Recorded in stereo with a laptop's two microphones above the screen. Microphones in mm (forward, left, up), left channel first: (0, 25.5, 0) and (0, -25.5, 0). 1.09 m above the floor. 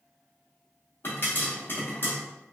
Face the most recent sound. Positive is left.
turn(degrees=45)  # may be behind; listen again after turning